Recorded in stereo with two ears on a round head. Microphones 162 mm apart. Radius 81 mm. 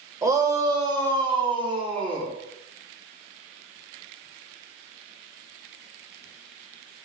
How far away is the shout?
About 2.5 m.